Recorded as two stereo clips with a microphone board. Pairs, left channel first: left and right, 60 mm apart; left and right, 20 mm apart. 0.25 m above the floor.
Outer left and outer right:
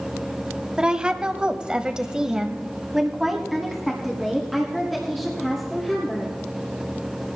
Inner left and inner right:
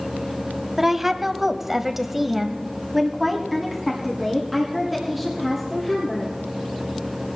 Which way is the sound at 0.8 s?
15° right (ahead or behind).